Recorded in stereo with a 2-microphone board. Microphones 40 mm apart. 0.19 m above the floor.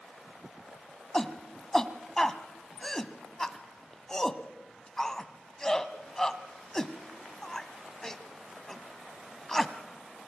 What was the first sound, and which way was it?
A shout, 10° left (ahead or behind).